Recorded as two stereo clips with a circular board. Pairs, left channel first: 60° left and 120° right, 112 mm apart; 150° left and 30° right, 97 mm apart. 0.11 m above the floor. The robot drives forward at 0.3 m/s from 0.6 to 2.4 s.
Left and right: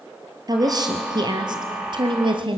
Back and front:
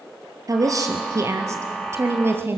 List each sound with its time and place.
0.5 s a woman speaking: 75° right, 2.5 m; by 2.6 s 90° right, 2.5 m